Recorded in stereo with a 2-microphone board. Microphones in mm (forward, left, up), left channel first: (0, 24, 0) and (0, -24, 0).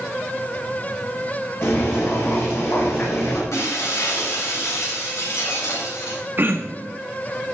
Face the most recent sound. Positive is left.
turn(degrees=-45)  # may be behind; listen again after turning